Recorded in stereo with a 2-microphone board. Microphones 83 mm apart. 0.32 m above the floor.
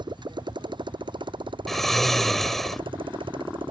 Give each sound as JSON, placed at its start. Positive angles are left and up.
{"t": 0.0, "sound": "a motorcycle", "side_deg": -65}
{"t": 1.7, "sound": "snoring", "side_deg": 5}